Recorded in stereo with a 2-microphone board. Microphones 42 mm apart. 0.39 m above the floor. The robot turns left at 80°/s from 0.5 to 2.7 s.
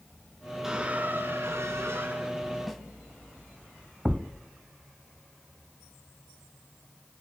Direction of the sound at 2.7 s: Centre (ahead or behind).